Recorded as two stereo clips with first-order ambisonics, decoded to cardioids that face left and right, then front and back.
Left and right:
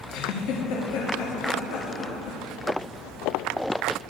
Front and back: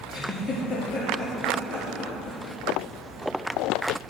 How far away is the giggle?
About 4.5 m.